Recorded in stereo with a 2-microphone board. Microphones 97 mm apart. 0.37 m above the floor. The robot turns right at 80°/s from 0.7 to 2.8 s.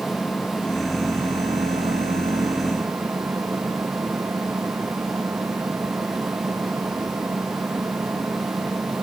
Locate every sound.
0.0 s an engine running: 170° left; by 9.0 s 20° right